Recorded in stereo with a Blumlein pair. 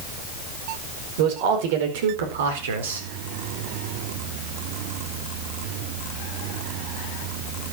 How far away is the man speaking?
About 5 m.